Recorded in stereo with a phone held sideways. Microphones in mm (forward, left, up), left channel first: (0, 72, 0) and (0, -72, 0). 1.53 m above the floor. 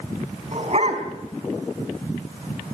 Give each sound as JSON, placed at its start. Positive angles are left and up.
{"t": 0.5, "sound": "a dog barking", "side_deg": -50, "distance_m": 4.5}